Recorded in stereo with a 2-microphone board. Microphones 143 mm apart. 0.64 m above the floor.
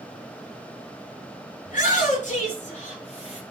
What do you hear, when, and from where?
1.6 s a shout: 65° left (ahead or behind), 7.5 m; by 3.4 s 50° left (ahead or behind), 8 m